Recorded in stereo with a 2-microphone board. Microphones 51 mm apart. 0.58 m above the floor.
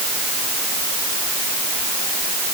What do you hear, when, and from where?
Only background noise.